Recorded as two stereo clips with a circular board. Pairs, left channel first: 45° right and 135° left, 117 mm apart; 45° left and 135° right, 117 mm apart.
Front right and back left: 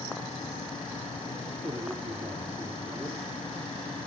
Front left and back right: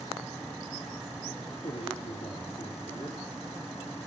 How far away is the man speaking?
About 3.5 m.